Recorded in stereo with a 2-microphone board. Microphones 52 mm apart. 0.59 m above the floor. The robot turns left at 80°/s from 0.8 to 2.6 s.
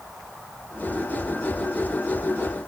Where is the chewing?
No chewing in this recording.